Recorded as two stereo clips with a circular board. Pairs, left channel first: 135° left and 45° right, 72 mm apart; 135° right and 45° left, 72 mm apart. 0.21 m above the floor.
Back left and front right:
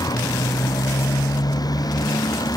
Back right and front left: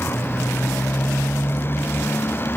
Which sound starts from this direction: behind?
A motorcycle, at 0.0 s.